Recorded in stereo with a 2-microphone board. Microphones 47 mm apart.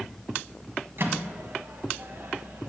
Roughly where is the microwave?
Right.